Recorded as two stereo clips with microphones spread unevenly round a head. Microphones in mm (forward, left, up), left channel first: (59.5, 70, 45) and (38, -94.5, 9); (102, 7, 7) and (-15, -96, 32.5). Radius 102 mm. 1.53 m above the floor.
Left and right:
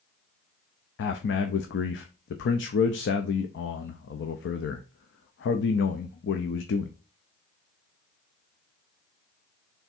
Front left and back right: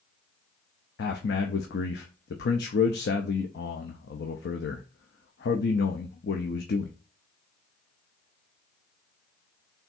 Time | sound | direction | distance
1.0 | a man speaking | 70° left | 0.5 m